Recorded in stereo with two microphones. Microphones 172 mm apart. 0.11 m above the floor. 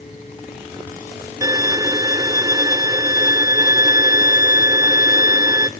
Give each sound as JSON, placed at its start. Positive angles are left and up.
{"t": 1.4, "sound": "a violin", "side_deg": -20, "distance_m": 0.5}